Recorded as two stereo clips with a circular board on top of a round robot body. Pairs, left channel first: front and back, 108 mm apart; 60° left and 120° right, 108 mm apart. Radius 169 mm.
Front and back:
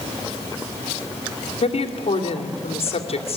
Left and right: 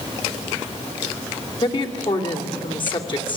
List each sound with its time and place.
1.6 s a woman speaking: 20° left, 3 m